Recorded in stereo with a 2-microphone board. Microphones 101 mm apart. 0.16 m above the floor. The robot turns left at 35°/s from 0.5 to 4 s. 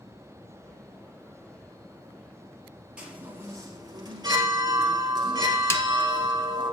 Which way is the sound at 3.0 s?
10° right.